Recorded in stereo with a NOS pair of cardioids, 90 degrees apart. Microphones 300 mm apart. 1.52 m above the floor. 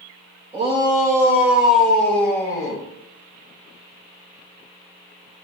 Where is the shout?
20° right, 3 m; by 2.8 s 15° left, 3.5 m.